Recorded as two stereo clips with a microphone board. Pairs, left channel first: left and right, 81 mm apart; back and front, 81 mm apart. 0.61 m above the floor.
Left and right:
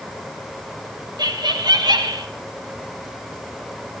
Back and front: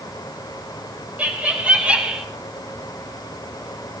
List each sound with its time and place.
1.2 s laughter: 70° right, 3 m; by 2.2 s 75° right, 2 m